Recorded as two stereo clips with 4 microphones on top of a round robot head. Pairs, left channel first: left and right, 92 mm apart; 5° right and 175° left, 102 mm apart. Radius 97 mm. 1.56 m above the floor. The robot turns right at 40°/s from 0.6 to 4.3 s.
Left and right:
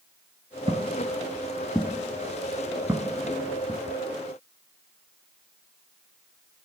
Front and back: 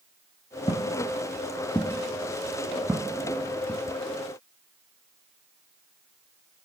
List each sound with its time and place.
0.7 s footsteps: 55° right, 1.8 m; by 3.8 s 95° right, 1.8 m